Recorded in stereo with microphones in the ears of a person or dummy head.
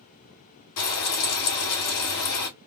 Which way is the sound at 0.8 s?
75° left (ahead or behind).